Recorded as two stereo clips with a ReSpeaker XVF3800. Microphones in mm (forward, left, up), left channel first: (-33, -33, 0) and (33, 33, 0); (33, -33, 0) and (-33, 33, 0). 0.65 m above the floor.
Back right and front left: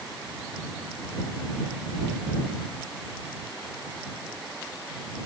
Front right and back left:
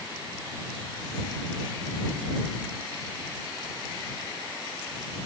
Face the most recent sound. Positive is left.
No sound to turn to.